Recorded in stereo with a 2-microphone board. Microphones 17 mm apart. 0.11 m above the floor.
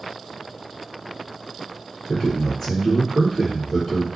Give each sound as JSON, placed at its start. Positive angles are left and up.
{"t": 2.1, "sound": "a man speaking", "side_deg": 10, "distance_m": 1.7}